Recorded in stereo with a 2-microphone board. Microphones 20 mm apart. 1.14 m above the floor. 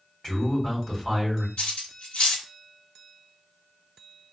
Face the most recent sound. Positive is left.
turn(degrees=75)  # may be behind; listen again after turning